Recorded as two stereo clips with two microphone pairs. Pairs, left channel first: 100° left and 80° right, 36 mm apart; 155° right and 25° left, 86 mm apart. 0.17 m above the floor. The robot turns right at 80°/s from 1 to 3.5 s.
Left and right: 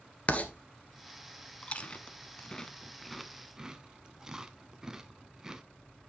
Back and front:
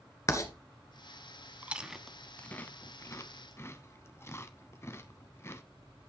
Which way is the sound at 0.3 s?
150° left.